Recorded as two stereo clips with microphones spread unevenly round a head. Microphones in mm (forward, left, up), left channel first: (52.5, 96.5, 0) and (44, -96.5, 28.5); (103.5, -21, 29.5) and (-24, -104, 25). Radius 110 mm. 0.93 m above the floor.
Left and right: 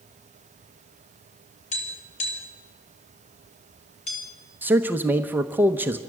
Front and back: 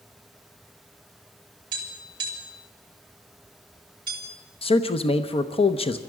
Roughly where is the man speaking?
Ahead.